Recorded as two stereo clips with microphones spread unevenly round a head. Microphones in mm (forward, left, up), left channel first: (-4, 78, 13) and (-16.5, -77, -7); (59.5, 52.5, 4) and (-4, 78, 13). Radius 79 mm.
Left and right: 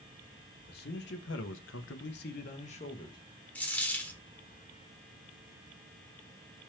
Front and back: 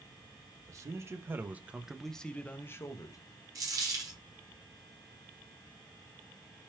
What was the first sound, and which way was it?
A man speaking, 115° left.